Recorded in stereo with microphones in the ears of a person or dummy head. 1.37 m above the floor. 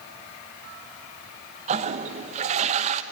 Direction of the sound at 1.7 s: 35° right (ahead or behind).